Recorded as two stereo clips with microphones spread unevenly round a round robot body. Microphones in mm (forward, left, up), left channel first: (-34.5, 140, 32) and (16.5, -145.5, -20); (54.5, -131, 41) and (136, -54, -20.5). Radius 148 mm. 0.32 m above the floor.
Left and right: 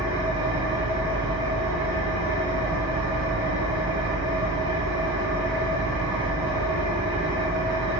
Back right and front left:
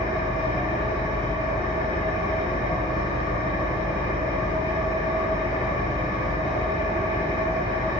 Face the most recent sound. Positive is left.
turn(degrees=-145)